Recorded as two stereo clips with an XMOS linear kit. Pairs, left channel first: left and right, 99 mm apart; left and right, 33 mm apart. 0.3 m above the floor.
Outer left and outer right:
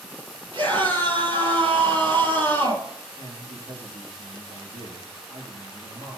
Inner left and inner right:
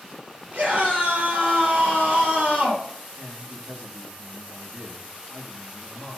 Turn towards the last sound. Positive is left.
turn(degrees=-70)  # may be behind; listen again after turning